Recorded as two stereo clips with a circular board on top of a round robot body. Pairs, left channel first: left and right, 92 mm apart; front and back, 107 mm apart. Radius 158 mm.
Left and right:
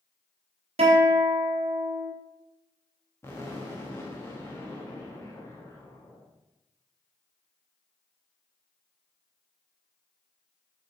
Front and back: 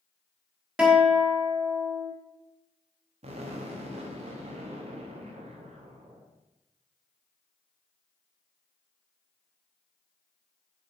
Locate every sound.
0.8 s a guitar: 95° right, 1.4 m
3.2 s an explosion: 155° left, 1.1 m